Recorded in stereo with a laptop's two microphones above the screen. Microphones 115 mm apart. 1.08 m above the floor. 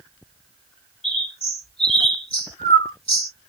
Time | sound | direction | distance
1.0 | a bird | 55° left (ahead or behind) | 3 m